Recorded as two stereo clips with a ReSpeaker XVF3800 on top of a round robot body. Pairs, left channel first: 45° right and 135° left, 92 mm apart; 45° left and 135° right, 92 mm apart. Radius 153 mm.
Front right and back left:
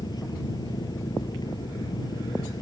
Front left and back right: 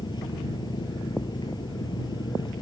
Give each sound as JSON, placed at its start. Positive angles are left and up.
{"t": 0.0, "sound": "an engine running", "azimuth_deg": 0}